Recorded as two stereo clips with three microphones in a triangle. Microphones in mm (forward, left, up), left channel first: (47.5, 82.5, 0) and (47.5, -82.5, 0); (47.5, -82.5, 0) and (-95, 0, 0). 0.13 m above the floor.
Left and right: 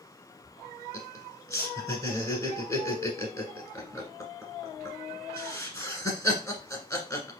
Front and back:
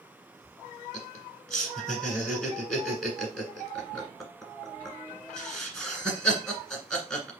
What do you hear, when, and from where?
0.9 s laughter: 55° left, 1.5 m